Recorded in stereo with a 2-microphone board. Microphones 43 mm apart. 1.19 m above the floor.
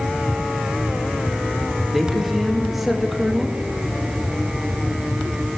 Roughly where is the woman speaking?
Centre.